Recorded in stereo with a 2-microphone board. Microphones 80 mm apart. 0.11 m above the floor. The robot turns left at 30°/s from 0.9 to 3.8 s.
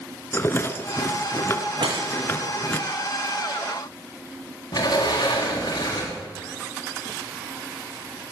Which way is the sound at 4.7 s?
50° left (ahead or behind).